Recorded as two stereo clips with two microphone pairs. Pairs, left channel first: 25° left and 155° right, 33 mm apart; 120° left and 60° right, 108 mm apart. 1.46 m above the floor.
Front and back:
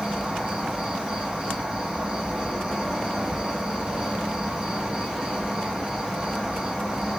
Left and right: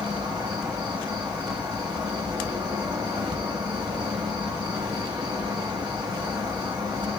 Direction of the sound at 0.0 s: 95° right.